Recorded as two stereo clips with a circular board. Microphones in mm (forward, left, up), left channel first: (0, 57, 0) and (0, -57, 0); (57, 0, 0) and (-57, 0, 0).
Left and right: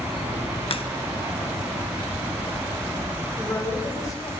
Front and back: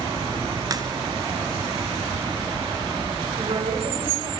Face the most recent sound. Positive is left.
turn(degrees=150)